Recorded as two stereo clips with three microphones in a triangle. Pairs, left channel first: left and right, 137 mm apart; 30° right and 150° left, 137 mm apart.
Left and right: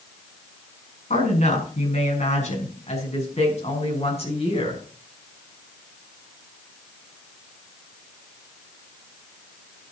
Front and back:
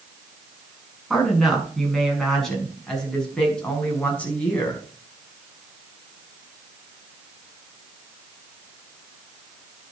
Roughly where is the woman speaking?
Ahead left.